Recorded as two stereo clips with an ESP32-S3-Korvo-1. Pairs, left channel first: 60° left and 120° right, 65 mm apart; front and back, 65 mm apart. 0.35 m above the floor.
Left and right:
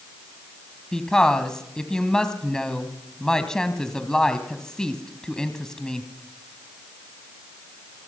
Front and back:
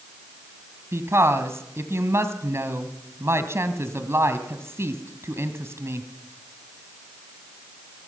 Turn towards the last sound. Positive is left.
turn(degrees=140)